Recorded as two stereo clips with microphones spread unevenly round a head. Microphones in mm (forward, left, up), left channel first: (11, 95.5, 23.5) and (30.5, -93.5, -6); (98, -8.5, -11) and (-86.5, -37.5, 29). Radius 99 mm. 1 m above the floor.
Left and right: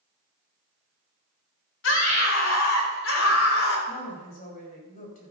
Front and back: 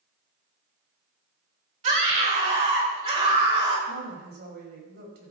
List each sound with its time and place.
1.8 s a scream: 130° left, 5 m; by 3.8 s 120° left, 5.5 m
3.9 s a woman speaking: 145° left, 5.5 m